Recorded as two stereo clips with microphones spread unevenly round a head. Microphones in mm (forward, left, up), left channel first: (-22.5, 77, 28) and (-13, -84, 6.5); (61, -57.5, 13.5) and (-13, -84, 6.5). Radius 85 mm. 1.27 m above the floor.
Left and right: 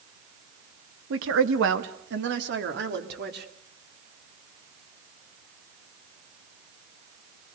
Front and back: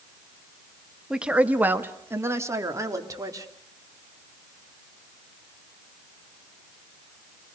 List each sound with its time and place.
1.1 s a woman speaking: 80° right, 1.6 m; by 3.5 s 115° right, 3.5 m